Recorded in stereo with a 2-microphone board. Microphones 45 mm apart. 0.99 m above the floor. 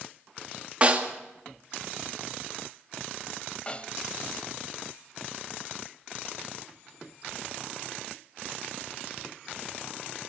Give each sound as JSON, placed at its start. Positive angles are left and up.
{"t": 0.8, "sound": "a snare drum", "side_deg": -30, "distance_m": 2.0}
{"t": 3.7, "sound": "a snare drum", "side_deg": 25, "distance_m": 1.1}